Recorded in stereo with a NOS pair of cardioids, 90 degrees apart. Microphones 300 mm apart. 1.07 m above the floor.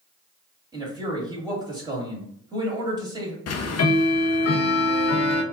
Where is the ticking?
55° left, 0.6 m.